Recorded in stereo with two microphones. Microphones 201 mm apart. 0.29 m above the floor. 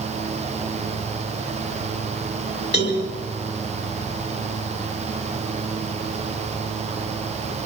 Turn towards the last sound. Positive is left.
turn(degrees=55)  # may be behind; listen again after turning